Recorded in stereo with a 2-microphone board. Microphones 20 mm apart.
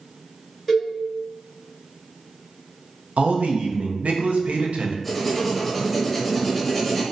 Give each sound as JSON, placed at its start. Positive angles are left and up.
{"t": 0.7, "sound": "a cowbell", "side_deg": 0, "distance_m": 1.3}
{"t": 3.2, "sound": "a man speaking", "side_deg": -70, "distance_m": 0.6}
{"t": 5.0, "sound": "writing", "side_deg": 5, "distance_m": 0.7}